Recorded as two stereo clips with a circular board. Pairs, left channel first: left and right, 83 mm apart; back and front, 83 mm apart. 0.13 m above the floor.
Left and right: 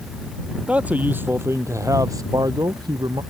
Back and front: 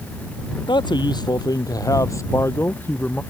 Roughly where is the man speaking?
Behind.